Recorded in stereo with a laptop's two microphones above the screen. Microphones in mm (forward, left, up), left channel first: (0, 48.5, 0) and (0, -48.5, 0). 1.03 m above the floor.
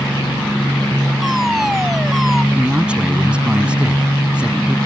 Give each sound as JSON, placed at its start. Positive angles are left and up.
{"t": 1.2, "sound": "a fire alarm", "side_deg": 0}
{"t": 2.5, "sound": "a man speaking", "side_deg": -10}